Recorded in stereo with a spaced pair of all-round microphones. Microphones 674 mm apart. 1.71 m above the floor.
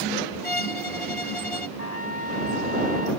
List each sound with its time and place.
0.4 s a violin: 50° left (ahead or behind)
1.8 s a trumpet: 65° left (ahead or behind)